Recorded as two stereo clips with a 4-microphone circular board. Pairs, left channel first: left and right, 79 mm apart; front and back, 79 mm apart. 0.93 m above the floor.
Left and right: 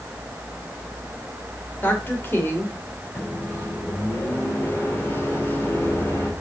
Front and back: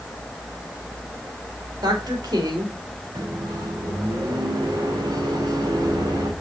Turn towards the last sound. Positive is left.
turn(degrees=150)